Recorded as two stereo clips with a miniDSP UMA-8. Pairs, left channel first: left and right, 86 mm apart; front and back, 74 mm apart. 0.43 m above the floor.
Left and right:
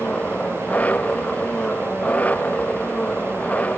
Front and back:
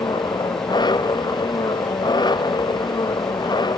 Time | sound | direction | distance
0.0 | an engine running | 15° left | ?